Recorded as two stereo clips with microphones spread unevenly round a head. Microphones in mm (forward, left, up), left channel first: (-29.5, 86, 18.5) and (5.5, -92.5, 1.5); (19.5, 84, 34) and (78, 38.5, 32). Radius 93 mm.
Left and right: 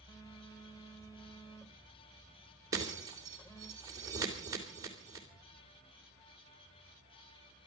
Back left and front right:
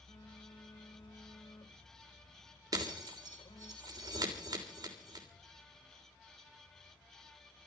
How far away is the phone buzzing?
About 2.5 m.